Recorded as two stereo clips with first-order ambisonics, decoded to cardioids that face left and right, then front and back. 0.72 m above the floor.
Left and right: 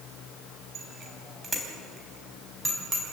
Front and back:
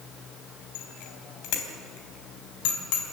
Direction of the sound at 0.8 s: 25° right.